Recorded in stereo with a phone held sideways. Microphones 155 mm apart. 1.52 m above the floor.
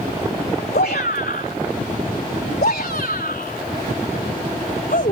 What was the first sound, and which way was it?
A shout, 80° left.